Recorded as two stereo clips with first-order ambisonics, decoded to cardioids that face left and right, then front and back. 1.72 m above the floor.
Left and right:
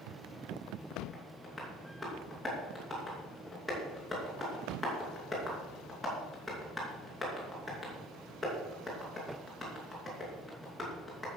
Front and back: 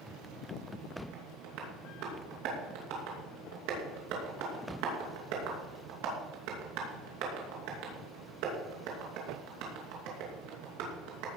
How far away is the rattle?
I don't hear a rattle.